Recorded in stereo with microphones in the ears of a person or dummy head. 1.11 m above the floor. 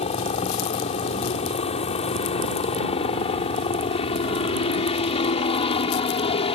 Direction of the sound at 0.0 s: 40° left (ahead or behind).